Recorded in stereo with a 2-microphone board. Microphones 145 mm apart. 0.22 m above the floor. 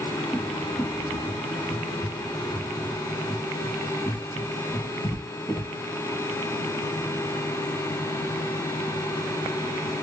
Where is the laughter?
I don't hear laughter.